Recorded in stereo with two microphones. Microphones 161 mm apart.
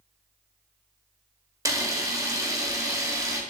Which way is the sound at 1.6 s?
20° right (ahead or behind).